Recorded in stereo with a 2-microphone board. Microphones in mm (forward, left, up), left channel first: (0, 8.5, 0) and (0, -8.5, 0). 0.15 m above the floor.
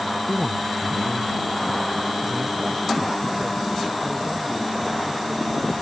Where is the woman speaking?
15° left (ahead or behind); by 5.7 s 35° right (ahead or behind).